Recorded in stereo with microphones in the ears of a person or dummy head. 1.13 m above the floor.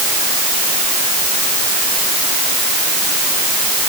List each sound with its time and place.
Only background noise.